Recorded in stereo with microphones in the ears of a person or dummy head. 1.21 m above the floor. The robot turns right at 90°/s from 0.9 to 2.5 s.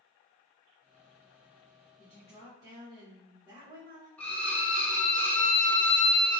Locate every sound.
2.0 s a woman speaking: 155° left, 1.1 m; by 4.1 s 160° right, 1.1 m
4.2 s a violin: 15° left (ahead or behind), 0.6 m